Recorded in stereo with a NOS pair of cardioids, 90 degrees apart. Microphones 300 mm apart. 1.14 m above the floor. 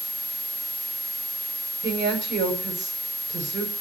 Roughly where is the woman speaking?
Ahead right.